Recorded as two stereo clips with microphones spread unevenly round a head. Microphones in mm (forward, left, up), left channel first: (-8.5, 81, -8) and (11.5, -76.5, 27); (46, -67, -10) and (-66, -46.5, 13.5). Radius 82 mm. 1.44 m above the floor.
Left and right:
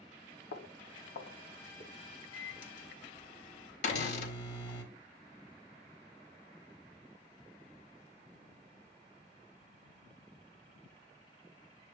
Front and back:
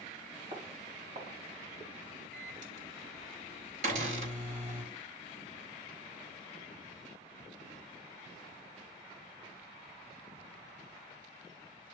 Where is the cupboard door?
150° left, 4 m.